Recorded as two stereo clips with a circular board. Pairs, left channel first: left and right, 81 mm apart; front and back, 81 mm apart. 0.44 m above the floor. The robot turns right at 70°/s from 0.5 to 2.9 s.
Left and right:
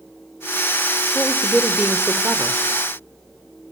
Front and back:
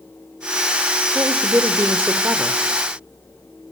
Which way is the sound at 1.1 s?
150° left.